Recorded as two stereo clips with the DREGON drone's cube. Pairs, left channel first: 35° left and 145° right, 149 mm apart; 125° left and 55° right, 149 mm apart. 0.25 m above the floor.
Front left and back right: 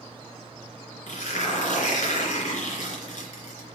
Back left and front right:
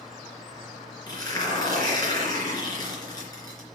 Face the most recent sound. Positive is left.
turn(degrees=65)